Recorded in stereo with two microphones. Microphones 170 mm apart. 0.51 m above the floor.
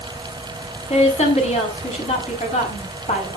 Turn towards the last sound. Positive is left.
turn(degrees=40)  # may be behind; listen again after turning